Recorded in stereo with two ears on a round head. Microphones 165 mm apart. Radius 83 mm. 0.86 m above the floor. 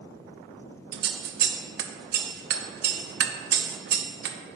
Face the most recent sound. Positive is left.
turn(degrees=-55)  # may be behind; listen again after turning